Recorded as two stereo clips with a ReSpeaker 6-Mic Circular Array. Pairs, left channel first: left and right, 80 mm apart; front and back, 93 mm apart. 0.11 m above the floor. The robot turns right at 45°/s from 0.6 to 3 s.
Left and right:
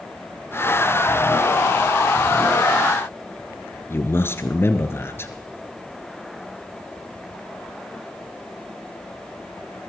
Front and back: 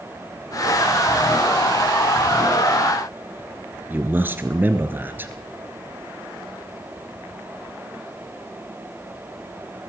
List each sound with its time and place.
3.9 s a man speaking: 125° left, 1.8 m